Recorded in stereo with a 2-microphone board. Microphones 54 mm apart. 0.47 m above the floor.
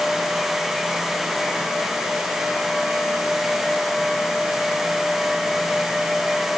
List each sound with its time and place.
Only background noise.